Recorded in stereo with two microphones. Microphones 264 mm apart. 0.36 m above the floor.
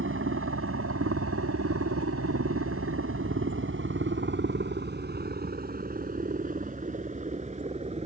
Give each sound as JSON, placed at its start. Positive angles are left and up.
{"t": 0.0, "sound": "a helicopter", "side_deg": -50}